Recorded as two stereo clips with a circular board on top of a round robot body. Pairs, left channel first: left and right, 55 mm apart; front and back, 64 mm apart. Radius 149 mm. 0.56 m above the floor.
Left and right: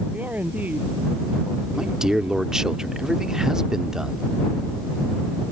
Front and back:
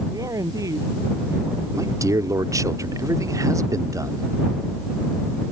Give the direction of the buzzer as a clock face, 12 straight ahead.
I don't hear a buzzer.